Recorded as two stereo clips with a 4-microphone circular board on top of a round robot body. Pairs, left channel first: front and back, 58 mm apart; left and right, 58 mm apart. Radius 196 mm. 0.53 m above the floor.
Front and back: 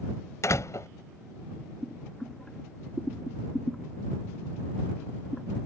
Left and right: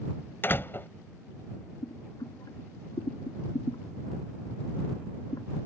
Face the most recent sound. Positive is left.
turn(degrees=80)